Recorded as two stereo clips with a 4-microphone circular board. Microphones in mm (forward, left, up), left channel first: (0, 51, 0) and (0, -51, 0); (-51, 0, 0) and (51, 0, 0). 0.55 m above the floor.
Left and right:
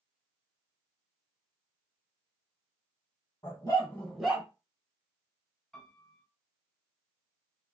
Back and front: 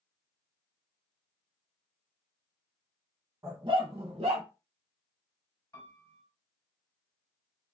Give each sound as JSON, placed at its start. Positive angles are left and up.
{"t": 3.4, "sound": "a dog barking", "azimuth_deg": 50, "distance_m": 1.4}
{"t": 5.7, "sound": "a piano", "azimuth_deg": 165, "distance_m": 1.3}